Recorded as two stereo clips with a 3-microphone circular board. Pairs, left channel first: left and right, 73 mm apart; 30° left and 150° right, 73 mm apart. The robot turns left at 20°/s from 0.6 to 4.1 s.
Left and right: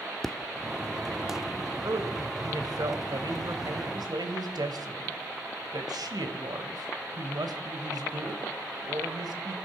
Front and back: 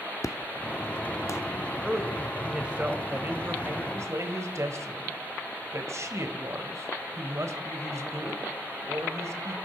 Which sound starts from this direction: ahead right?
A man speaking, at 1.8 s.